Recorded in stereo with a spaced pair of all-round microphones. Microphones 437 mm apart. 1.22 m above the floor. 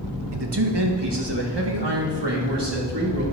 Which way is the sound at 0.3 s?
65° right (ahead or behind).